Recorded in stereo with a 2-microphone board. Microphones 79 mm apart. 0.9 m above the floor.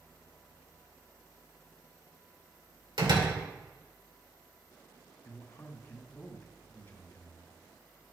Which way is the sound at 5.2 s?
30° left (ahead or behind).